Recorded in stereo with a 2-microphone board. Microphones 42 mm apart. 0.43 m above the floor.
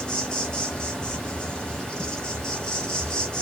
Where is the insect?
20° left (ahead or behind), 1.1 m.